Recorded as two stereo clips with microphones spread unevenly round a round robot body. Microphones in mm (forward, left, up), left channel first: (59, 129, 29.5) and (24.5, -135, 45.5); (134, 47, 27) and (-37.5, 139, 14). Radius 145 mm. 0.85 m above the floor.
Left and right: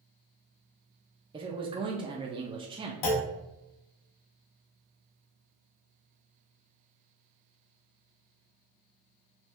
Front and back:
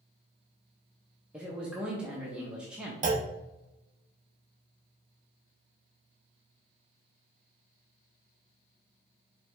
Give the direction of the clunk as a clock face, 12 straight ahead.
9 o'clock.